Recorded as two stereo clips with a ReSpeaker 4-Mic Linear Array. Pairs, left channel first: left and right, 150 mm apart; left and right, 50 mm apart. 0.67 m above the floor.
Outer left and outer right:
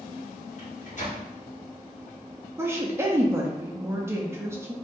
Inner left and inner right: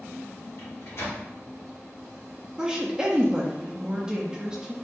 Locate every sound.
0.6 s a microwave: 50° left (ahead or behind), 1.3 m
2.6 s a woman speaking: 15° right (ahead or behind), 0.7 m